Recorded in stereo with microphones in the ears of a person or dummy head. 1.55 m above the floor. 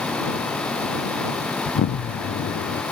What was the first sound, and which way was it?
An explosion, 55° left (ahead or behind).